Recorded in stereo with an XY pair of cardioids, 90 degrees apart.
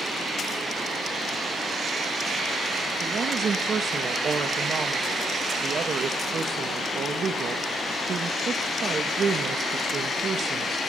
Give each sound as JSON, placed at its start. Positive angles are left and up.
{"t": 3.0, "sound": "a woman speaking", "azimuth_deg": -55, "distance_m": 1.8}